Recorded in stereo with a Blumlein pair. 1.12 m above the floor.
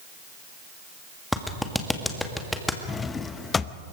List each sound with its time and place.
1.3 s a clap: 5° left, 1.7 m
2.9 s a drawer: 15° left, 0.7 m